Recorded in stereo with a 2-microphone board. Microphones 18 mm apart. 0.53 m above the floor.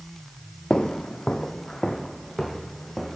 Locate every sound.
0.7 s footsteps: 55° left (ahead or behind), 0.9 m; by 3.2 s 10° left (ahead or behind), 3 m